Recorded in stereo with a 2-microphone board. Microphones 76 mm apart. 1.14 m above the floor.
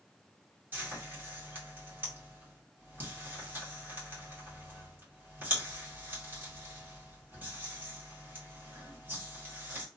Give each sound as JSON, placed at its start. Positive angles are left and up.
{"t": 0.7, "sound": "frying", "side_deg": -25, "distance_m": 2.0}